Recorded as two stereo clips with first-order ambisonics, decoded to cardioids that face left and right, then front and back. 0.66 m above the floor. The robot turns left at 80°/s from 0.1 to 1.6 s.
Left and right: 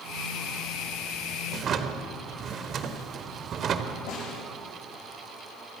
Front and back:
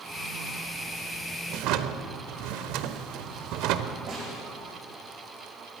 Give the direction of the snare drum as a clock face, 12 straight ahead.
8 o'clock.